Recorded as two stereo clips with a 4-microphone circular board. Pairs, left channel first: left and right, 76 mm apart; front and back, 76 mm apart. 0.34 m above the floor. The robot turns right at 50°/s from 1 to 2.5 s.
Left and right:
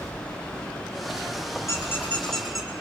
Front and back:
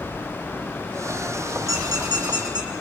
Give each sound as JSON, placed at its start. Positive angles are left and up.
{"t": 1.7, "sound": "a squeak", "azimuth_deg": 140, "distance_m": 3.5}